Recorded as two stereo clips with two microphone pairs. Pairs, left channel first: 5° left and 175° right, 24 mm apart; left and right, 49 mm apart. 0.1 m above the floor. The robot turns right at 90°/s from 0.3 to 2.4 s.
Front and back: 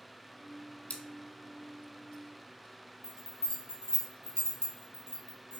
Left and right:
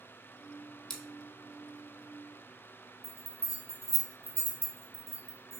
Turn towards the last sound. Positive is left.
turn(degrees=-35)